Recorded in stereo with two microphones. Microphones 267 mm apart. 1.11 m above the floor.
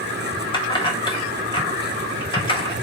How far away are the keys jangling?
About 0.8 m.